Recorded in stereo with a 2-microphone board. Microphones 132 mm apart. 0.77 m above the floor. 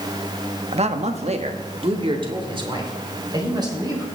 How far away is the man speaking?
About 0.9 m.